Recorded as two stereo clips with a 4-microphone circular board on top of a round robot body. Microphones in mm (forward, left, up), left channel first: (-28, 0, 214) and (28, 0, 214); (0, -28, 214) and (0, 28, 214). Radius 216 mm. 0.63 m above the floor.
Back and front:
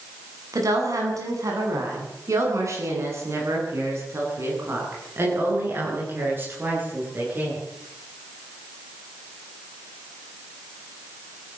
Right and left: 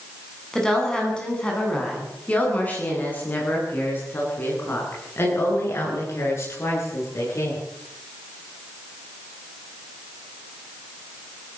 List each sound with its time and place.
0.5 s a woman speaking: 10° right, 8.5 m; by 7.6 s 55° right, 14.5 m